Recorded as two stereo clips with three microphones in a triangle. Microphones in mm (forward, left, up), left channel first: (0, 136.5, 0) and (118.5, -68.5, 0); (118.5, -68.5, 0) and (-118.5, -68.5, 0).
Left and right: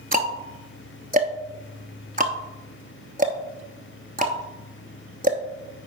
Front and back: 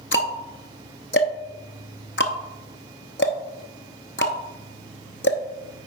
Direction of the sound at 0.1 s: 15° right.